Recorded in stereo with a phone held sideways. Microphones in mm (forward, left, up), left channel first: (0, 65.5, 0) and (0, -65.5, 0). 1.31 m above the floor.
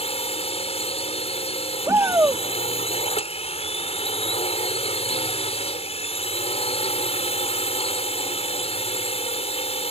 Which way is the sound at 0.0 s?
50° left (ahead or behind).